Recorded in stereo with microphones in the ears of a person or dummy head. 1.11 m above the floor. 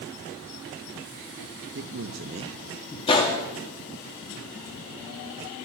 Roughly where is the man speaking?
Right.